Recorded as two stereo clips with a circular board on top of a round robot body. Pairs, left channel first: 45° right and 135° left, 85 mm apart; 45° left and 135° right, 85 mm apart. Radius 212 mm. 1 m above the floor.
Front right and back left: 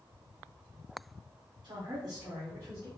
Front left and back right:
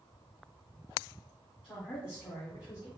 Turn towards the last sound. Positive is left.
turn(degrees=80)